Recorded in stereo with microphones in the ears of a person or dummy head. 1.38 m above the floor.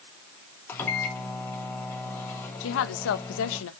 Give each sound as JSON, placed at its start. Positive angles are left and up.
{"t": 0.7, "sound": "a microwave", "side_deg": 10, "distance_m": 2.5}
{"t": 2.6, "sound": "a woman speaking", "side_deg": 80, "distance_m": 1.2}